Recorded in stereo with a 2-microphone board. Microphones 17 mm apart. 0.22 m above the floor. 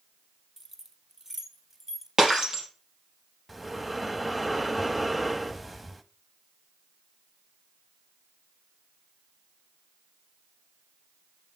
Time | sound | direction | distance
0.6 | keys jangling | 20° right (ahead or behind) | 1.3 m
2.2 | breaking glass | 35° right (ahead or behind) | 3.5 m
3.5 | breathing | 5° right (ahead or behind) | 0.7 m